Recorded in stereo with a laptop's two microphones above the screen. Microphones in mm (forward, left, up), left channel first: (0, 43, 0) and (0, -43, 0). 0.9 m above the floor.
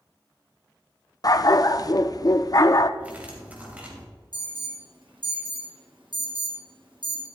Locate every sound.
1.2 s a dog barking: 45° left (ahead or behind), 0.5 m
3.0 s cutlery clinking: 15° right (ahead or behind), 2.5 m
4.3 s an alarm: 70° right (ahead or behind), 2.5 m